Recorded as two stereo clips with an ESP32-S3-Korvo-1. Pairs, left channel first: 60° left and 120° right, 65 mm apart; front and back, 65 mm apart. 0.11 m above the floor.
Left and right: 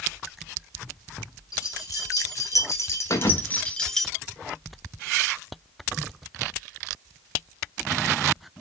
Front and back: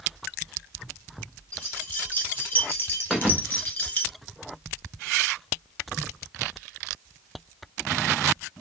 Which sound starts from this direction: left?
A thud, at 3.1 s.